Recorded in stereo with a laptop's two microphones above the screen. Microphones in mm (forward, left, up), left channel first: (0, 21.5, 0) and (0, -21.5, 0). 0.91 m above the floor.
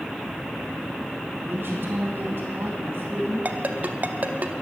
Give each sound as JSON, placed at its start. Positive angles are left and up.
{"t": 1.5, "sound": "a woman speaking", "side_deg": -60, "distance_m": 2.5}
{"t": 3.5, "sound": "a ringtone", "side_deg": -40, "distance_m": 0.7}